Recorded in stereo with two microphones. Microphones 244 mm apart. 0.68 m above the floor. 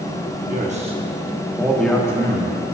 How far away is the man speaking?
About 1.2 m.